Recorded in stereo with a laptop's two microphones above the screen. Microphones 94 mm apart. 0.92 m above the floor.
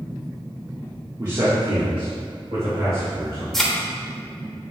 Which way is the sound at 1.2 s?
40° right (ahead or behind).